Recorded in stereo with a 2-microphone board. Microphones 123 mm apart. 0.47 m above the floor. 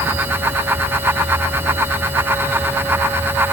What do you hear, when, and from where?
Only background noise.